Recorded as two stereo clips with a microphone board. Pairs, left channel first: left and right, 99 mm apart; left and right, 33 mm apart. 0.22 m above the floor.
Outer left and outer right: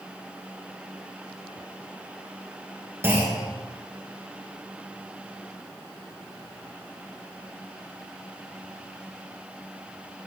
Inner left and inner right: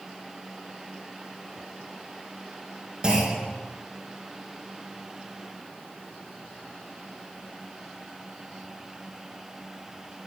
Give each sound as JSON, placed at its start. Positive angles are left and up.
{"t": 3.0, "sound": "a clunk", "side_deg": -25, "distance_m": 2.5}